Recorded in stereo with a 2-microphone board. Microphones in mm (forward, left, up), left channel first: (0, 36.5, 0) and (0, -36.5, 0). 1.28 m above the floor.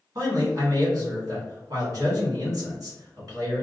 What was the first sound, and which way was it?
A man speaking, 55° right (ahead or behind).